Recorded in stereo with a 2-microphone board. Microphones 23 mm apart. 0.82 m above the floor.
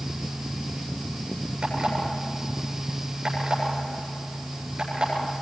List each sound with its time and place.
1.6 s an alarm clock: 45° right (ahead or behind), 8.5 m